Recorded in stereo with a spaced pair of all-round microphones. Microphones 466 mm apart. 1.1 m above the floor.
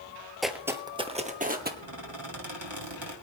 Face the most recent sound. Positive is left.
turn(degrees=-70)  # may be behind; listen again after turning